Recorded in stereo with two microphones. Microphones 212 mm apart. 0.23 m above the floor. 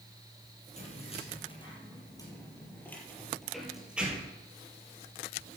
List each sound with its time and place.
0.8 s keys jangling: 30° left (ahead or behind), 4.5 m; by 4.4 s 10° right (ahead or behind), 4 m